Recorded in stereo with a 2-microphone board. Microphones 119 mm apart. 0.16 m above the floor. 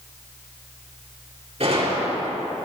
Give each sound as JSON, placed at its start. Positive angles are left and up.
{"t": 1.6, "sound": "a gunshot", "side_deg": -60, "distance_m": 4.0}